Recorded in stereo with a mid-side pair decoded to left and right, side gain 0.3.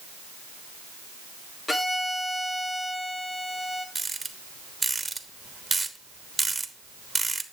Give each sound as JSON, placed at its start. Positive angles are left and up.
{"t": 1.7, "sound": "a violin", "azimuth_deg": 30, "distance_m": 1.5}
{"t": 4.0, "sound": "a rattle", "azimuth_deg": -25, "distance_m": 1.0}